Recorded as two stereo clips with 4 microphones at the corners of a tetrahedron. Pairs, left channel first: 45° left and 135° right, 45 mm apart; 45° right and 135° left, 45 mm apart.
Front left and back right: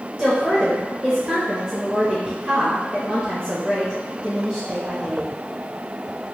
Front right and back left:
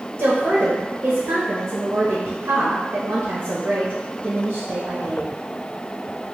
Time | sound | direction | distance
0.2 | a woman speaking | 165° left | 0.8 m